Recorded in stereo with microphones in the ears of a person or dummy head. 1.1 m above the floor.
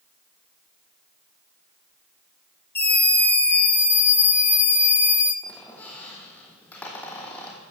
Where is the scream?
10° left (ahead or behind), 6 m; by 5.3 s 15° left (ahead or behind), 4 m.